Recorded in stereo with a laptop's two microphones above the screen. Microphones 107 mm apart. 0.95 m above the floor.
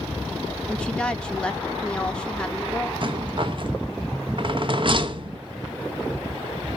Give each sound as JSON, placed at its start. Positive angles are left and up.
{"t": 0.7, "sound": "a woman speaking", "side_deg": 10, "distance_m": 0.8}
{"t": 3.0, "sound": "a rattle", "side_deg": -50, "distance_m": 0.6}